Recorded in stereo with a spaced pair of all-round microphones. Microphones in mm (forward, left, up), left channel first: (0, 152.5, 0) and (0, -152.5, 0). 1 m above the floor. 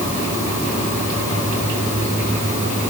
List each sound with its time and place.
Only background noise.